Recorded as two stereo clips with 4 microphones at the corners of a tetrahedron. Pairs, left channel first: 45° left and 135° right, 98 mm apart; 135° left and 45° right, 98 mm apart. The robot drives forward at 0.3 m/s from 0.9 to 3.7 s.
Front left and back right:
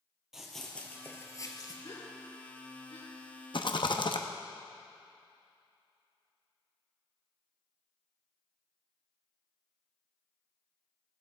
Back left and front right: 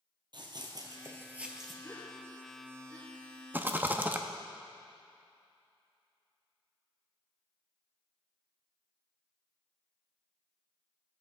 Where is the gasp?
65° left, 4.5 m; by 3.1 s 70° left, 4 m.